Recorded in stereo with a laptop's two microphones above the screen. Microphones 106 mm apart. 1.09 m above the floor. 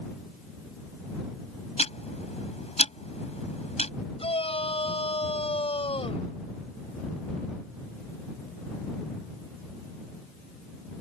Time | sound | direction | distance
1.8 | ticking | 85° left | ?
4.2 | a shout | 70° left (ahead or behind) | ?